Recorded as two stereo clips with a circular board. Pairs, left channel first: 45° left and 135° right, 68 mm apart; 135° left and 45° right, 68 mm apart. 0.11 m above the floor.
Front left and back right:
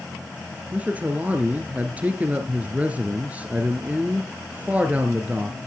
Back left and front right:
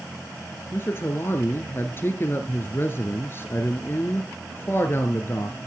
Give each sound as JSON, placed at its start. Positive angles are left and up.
{"t": 0.7, "sound": "a man speaking", "azimuth_deg": 170, "distance_m": 1.4}